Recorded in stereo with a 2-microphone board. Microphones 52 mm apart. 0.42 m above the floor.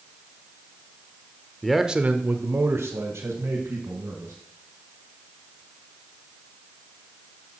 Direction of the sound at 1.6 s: 5° left (ahead or behind).